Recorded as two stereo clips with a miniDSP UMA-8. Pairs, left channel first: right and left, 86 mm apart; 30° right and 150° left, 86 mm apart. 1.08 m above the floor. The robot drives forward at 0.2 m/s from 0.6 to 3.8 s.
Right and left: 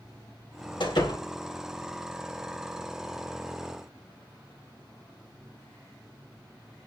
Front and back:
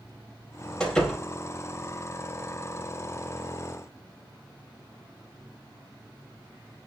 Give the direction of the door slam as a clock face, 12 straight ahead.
4 o'clock.